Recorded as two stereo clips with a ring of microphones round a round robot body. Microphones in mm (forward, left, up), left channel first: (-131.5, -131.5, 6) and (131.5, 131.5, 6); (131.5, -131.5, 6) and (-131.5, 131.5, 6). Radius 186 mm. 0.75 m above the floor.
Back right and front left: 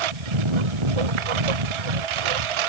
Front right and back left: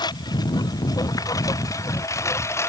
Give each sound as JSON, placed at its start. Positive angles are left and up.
{"t": 0.0, "sound": "a lawn mower", "azimuth_deg": 35}